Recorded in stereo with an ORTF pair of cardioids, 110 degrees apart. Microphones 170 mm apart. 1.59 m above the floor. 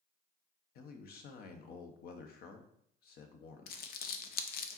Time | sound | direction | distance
0.8 | a man speaking | 65° left | 1.3 m
3.7 | crumpling | 65° left | 0.8 m